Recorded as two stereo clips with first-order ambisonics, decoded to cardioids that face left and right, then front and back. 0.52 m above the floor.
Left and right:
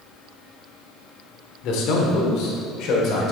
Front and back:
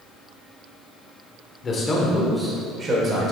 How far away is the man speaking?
About 1.2 m.